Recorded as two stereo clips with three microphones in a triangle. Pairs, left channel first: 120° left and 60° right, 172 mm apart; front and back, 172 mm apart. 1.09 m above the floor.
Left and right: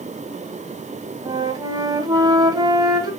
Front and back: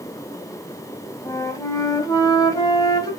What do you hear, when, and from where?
1.2 s a flute: 35° right, 1.0 m